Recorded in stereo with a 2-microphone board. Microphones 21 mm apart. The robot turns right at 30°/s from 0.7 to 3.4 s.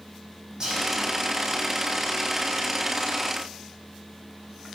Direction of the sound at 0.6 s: 35° right (ahead or behind).